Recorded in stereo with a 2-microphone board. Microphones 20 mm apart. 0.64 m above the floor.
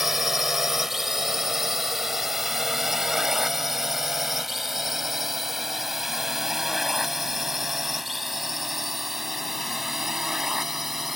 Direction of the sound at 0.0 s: 15° right (ahead or behind).